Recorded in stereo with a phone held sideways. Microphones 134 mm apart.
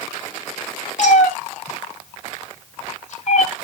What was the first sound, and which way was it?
A cat meowing, 60° left (ahead or behind).